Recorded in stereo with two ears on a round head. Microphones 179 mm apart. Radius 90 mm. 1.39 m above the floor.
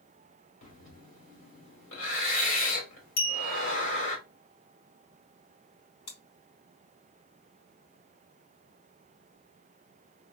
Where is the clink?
55° left (ahead or behind), 1.8 m.